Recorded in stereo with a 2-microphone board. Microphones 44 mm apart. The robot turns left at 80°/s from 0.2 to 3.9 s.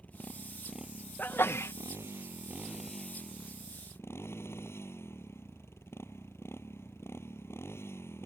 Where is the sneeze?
135° left; by 1.7 s 90° left.